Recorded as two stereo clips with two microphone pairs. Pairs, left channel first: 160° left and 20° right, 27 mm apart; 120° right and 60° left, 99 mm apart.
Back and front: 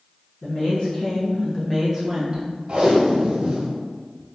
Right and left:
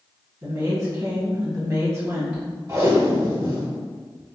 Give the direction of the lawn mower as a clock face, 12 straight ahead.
No lawn mower in this recording.